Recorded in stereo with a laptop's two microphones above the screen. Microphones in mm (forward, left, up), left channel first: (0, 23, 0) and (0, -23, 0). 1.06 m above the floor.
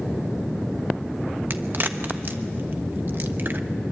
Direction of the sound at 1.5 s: 45° right (ahead or behind).